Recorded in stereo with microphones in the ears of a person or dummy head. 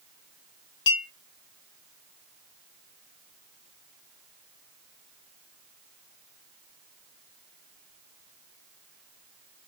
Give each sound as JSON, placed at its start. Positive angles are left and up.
{"t": 0.9, "sound": "a clink", "side_deg": 30, "distance_m": 1.2}